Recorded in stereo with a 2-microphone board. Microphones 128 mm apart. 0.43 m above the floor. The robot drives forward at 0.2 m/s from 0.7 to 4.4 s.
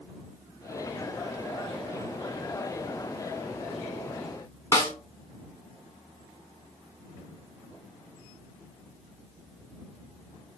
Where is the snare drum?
25° left (ahead or behind), 1.3 m.